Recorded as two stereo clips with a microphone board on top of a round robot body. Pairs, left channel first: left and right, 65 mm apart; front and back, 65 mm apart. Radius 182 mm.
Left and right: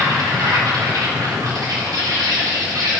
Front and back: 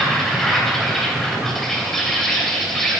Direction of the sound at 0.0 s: 85° right.